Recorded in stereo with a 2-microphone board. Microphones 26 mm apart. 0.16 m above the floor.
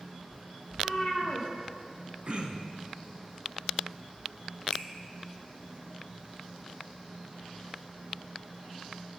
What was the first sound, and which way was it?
A cat meowing, 10° left (ahead or behind).